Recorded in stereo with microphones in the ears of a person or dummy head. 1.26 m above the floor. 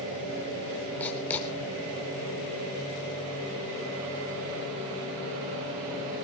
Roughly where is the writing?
Centre.